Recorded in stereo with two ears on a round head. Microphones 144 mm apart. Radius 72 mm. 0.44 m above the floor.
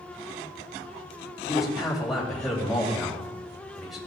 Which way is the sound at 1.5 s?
Centre (ahead or behind).